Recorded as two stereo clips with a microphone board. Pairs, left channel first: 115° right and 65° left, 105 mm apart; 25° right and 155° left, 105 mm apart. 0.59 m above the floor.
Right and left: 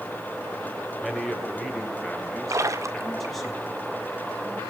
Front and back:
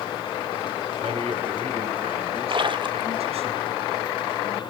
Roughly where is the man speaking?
Behind left.